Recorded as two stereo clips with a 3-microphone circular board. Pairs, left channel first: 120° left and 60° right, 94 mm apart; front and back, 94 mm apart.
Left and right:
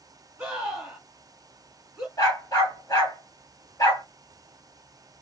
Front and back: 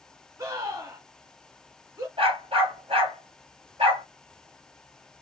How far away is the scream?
About 2.5 m.